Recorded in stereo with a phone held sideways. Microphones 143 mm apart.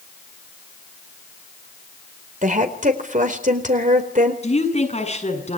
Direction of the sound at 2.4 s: 65° right (ahead or behind).